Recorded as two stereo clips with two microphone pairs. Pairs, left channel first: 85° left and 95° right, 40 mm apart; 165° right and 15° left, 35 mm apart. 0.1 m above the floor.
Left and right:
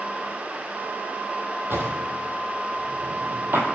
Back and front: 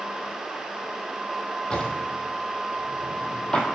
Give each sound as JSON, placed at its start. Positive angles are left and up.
{"t": 1.7, "sound": "a drawer", "azimuth_deg": -105, "distance_m": 1.0}